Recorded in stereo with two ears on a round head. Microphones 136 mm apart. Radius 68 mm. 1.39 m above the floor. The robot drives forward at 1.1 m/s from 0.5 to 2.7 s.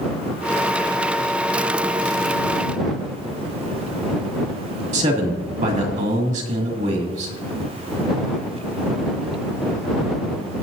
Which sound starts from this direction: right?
A man speaking, at 4.9 s.